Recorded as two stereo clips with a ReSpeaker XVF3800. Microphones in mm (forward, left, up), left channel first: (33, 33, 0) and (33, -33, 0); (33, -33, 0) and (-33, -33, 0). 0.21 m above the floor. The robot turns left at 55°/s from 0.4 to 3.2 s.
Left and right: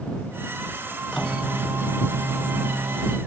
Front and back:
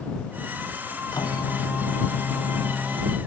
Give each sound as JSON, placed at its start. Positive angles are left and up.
{"t": 1.1, "sound": "a microwave", "azimuth_deg": 5}